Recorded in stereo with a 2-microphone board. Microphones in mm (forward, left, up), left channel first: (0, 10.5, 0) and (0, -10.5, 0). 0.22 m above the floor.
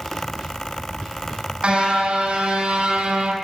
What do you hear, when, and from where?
1.6 s a car horn: 50° right (ahead or behind), 5.5 m; by 3.4 s 65° right (ahead or behind), 4 m